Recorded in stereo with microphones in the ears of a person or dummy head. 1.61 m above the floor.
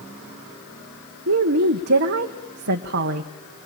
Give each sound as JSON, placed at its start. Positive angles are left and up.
{"t": 1.3, "sound": "a woman speaking", "side_deg": -55, "distance_m": 1.1}